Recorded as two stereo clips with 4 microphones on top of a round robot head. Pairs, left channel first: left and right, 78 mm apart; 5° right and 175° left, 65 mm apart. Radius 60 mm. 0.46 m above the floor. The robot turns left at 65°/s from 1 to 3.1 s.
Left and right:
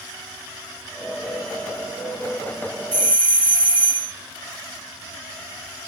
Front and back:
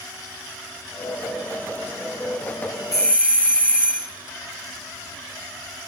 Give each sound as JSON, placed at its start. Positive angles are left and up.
{"t": 2.9, "sound": "a doorbell", "azimuth_deg": -60, "distance_m": 5.5}